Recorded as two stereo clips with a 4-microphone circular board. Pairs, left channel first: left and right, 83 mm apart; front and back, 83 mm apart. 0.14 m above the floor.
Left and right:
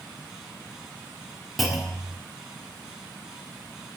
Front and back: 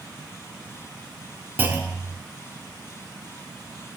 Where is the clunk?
Straight behind, 0.6 m.